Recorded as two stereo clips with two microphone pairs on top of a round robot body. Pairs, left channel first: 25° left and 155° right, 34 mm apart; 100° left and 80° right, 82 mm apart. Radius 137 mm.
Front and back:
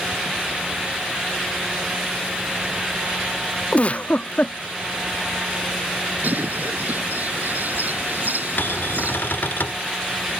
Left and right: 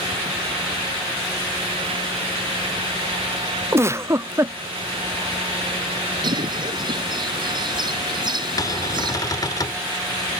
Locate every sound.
3.7 s a giggle: 25° right
6.2 s a bird: 115° right
8.6 s a cupboard door: 55° left